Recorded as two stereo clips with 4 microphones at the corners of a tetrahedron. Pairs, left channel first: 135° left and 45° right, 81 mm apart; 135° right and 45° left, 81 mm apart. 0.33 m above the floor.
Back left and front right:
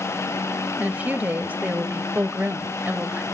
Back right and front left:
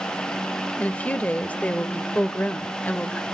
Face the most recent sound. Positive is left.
turn(degrees=-85)